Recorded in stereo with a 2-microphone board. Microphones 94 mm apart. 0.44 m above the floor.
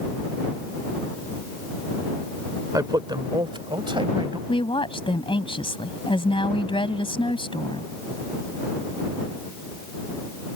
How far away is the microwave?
I don't hear a microwave.